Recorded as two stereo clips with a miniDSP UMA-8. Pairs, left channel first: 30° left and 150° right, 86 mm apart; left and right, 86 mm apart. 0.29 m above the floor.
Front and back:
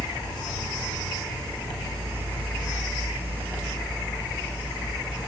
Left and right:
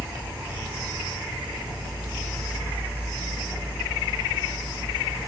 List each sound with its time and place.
0.0 s an insect: 160° right, 1.9 m